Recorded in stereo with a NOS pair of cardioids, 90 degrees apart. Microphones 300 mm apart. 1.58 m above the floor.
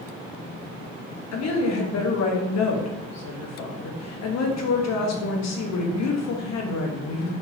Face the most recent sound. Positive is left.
turn(degrees=65)